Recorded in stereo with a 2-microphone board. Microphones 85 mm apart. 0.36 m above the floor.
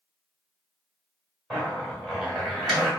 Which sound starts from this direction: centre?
A zipper, at 1.5 s.